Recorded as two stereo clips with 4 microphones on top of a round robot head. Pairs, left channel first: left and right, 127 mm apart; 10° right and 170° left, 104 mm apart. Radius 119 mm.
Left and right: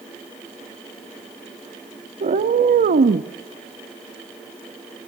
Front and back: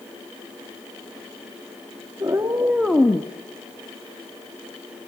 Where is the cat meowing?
120° right, 1.5 m; by 3.3 s 70° right, 0.7 m.